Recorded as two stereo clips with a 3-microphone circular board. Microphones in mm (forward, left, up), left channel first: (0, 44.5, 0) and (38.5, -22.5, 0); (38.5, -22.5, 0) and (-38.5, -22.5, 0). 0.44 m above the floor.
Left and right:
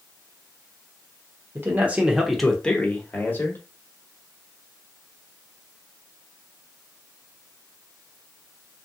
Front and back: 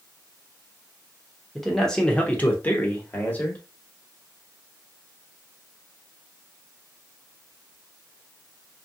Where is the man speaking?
90° right, 0.8 m; by 3.6 s 60° left, 1.3 m.